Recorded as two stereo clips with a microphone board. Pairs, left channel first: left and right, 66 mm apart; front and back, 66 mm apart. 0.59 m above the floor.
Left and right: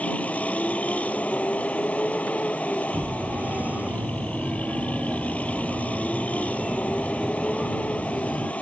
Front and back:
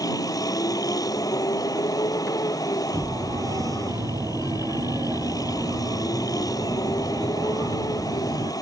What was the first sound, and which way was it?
A vehicle, 20° left.